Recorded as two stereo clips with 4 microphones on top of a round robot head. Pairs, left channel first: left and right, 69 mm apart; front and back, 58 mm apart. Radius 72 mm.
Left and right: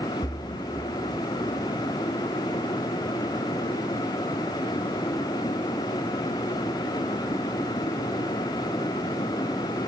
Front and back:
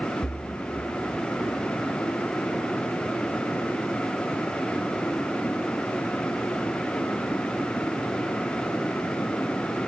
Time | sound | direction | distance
0.2 | a splash | 75° left | 1.2 m